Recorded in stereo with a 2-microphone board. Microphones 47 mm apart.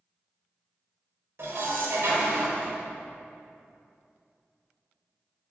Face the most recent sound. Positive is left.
turn(degrees=-60)  # may be behind; listen again after turning